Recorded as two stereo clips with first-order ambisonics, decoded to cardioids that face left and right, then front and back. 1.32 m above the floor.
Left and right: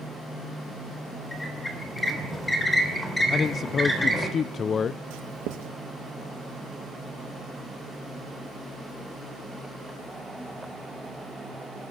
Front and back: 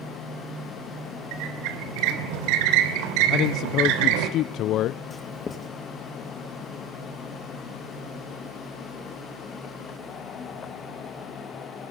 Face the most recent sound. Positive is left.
turn(degrees=-70)